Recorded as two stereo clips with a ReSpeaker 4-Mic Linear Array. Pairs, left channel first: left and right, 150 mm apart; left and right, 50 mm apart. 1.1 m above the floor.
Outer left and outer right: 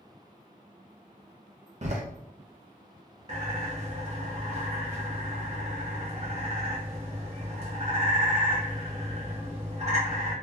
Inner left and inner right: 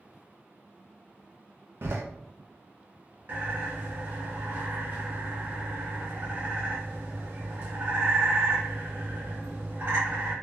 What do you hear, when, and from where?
1.8 s a door slam: 50° right (ahead or behind), 0.7 m
3.3 s a bird: 45° right (ahead or behind), 1.2 m